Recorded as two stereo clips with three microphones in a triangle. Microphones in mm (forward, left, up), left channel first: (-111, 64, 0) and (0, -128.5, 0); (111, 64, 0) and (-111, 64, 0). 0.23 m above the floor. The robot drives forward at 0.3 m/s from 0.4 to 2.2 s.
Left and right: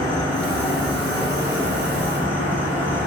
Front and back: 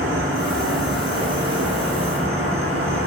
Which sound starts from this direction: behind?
An insect, at 0.0 s.